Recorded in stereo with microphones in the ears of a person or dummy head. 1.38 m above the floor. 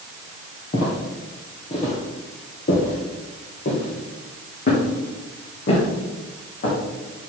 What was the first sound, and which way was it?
Footsteps, 30° left (ahead or behind).